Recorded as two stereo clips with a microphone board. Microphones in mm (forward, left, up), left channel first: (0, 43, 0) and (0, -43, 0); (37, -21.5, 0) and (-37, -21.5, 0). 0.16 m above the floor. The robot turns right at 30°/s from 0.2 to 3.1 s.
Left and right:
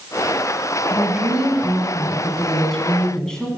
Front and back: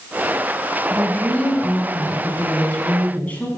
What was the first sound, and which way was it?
A woman speaking, 45° right.